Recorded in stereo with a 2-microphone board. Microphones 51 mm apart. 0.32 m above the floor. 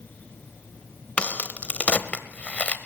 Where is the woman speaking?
I don't hear a woman speaking.